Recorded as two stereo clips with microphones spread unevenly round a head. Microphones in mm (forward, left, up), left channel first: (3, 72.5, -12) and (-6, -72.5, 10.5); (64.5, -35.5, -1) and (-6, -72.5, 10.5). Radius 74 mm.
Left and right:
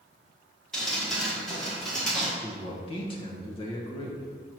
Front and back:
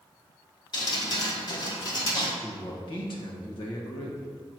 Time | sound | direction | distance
0.7 | dripping | straight ahead | 1.2 m
2.4 | a man speaking | 30° left | 1.1 m